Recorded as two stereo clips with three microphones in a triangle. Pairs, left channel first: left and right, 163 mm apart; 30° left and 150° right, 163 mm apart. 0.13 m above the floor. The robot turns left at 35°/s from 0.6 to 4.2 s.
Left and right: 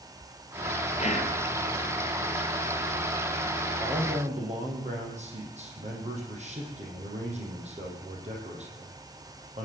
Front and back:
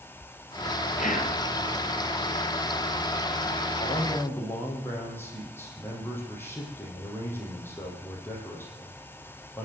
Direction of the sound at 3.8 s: 35° right.